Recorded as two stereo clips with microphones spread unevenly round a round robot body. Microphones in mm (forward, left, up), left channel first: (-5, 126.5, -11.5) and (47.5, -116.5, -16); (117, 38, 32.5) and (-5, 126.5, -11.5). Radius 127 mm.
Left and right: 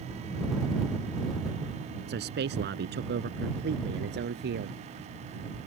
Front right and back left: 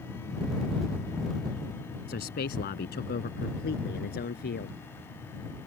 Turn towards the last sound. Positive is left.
turn(degrees=-30)